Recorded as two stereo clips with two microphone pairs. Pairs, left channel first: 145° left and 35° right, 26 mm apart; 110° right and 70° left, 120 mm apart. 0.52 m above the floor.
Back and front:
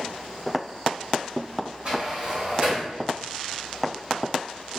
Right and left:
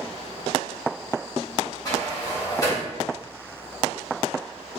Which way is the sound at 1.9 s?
60° right.